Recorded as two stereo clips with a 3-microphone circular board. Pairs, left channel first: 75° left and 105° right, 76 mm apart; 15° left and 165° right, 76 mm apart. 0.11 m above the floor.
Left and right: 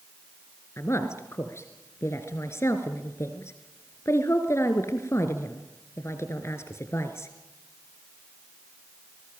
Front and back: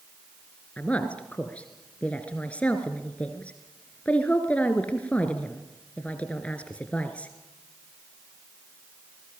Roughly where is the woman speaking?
Left.